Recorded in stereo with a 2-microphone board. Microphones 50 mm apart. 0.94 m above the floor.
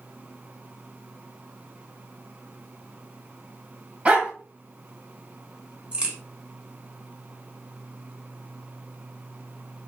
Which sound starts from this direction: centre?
A crack, at 5.9 s.